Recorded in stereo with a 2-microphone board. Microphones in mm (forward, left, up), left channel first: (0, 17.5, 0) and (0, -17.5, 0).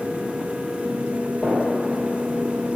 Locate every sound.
1.4 s a gunshot: 5° left (ahead or behind), 2.5 m